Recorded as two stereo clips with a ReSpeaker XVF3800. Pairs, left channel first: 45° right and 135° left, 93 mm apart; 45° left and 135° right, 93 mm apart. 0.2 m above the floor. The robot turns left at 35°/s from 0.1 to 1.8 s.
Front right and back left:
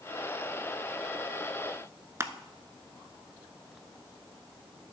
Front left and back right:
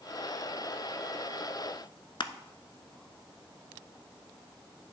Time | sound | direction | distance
2.2 | crushing | 75° left | 0.5 m